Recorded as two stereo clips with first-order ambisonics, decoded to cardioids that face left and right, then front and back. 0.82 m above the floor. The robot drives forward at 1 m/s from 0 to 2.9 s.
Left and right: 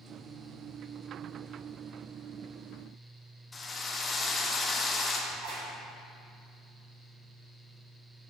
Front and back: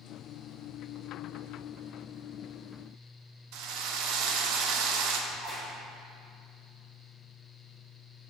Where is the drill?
165° left, 0.6 m.